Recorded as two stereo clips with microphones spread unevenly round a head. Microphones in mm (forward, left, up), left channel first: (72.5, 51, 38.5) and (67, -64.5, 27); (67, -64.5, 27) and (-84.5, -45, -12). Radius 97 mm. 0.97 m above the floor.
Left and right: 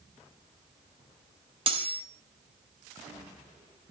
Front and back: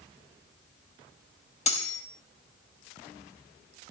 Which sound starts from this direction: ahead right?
Cutlery clinking, at 1.7 s.